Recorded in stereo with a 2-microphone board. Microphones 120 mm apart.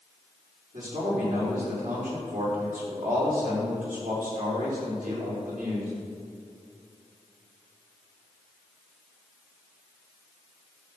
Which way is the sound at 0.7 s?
90° right.